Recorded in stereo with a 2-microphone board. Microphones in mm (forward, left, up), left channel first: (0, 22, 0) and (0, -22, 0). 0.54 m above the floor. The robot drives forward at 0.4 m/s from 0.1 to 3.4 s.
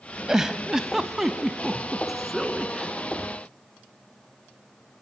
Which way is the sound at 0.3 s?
15° right (ahead or behind).